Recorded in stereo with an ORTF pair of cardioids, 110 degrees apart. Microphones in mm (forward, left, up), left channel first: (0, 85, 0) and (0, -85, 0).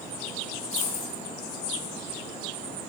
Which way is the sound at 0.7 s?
45° left.